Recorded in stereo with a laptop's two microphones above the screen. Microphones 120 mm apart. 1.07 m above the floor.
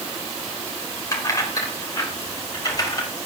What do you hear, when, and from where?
1.1 s keys jangling: 30° left (ahead or behind), 3.5 m; by 3.1 s 35° left (ahead or behind), 4.5 m